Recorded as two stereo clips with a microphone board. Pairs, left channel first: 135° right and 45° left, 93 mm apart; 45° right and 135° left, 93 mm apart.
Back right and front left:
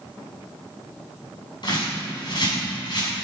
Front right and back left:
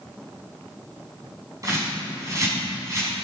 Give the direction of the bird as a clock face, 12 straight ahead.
6 o'clock.